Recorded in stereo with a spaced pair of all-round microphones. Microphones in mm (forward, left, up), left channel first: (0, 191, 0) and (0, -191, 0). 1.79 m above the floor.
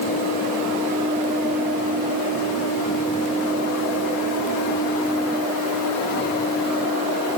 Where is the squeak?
I don't hear a squeak.